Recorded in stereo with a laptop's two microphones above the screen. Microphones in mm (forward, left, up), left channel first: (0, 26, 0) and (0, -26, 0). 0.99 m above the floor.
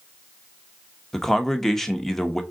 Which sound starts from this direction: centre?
A man speaking, at 1.1 s.